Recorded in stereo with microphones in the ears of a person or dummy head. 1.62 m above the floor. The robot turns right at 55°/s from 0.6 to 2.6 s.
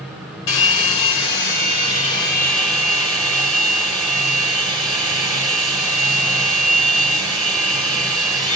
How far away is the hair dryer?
About 4.5 m.